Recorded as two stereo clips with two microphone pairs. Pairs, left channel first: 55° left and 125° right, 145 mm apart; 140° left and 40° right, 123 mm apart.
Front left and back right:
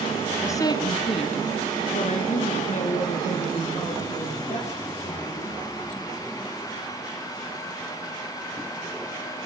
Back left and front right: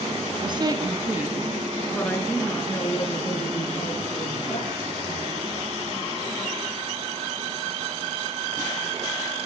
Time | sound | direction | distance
0.4 | a woman speaking | 10° right | 2 m